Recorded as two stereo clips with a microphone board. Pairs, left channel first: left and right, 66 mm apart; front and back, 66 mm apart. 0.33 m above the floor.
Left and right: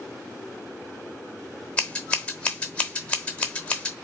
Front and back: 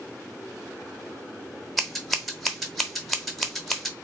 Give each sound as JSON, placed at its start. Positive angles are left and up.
{"t": 1.8, "sound": "scissors", "azimuth_deg": 90, "distance_m": 0.9}